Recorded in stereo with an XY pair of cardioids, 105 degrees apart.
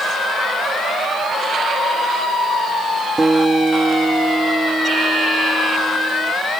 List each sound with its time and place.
3.2 s a guitar: 20° right